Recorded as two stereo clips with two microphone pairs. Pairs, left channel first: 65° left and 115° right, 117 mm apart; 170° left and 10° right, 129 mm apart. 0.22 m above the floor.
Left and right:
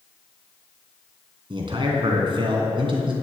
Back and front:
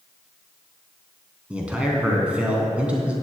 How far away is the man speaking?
About 2.5 m.